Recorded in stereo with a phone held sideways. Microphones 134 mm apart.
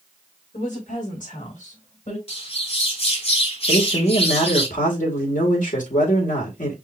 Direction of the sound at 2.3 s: 50° left (ahead or behind).